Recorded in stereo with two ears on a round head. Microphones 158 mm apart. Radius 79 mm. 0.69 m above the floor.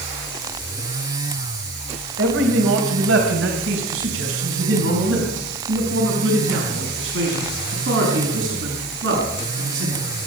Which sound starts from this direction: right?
A man speaking, at 2.2 s.